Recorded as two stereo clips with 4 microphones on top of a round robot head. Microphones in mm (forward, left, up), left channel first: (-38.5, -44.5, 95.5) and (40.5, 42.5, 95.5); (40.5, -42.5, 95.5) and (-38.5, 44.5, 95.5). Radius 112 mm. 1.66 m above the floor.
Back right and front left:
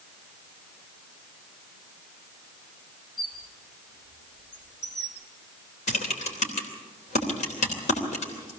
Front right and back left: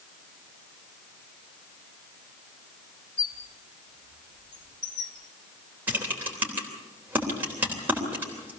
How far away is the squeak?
About 1.5 m.